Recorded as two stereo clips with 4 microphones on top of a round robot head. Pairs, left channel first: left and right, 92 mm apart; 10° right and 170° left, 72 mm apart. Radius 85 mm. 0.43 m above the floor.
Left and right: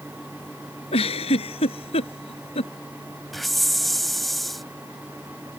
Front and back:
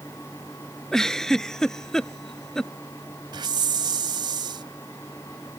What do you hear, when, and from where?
0.9 s a giggle: 70° left
3.3 s a hiss: straight behind